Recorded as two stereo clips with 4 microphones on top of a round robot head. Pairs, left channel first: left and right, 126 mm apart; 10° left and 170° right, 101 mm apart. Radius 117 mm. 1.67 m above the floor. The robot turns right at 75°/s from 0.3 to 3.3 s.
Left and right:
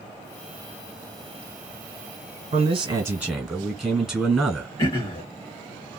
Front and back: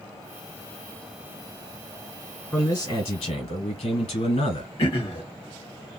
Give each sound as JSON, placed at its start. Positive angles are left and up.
{"t": 2.5, "sound": "a man speaking", "azimuth_deg": -60, "distance_m": 1.5}
{"t": 4.8, "sound": "throat clearing", "azimuth_deg": 40, "distance_m": 0.7}